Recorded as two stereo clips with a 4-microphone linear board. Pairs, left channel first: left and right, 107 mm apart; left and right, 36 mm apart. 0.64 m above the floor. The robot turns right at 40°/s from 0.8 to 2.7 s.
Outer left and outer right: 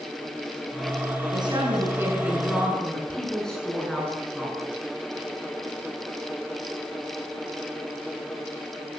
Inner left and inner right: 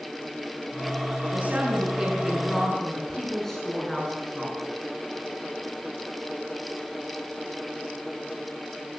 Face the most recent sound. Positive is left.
turn(degrees=5)